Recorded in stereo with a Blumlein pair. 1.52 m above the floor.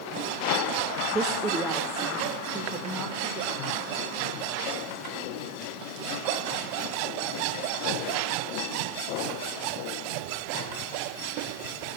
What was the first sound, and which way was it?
A woman speaking, 20° right.